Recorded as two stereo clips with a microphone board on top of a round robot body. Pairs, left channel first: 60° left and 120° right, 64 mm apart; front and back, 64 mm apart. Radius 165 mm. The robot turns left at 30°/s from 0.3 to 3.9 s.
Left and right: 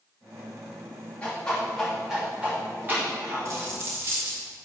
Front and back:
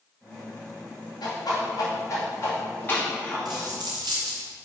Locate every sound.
1.2 s a whoosh: 10° right, 2.5 m; by 3.7 s 85° right, 2.5 m
3.5 s a dropped coin: 160° right, 0.8 m; by 4.4 s 175° right, 0.8 m